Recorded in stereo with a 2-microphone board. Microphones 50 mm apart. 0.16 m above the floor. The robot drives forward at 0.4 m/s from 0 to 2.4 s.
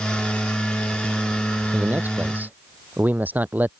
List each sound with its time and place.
1.7 s a man speaking: 35° right (ahead or behind)